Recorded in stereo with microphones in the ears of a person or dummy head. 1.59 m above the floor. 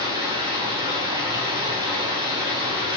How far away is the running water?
About 0.8 m.